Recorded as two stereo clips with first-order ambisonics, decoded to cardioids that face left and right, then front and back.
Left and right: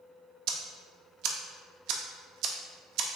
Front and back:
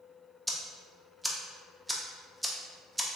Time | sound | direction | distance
0.5 | ticking | 95° right | 0.5 m